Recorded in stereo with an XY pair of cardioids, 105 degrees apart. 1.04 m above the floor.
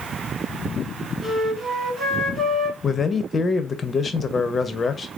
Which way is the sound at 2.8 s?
35° left.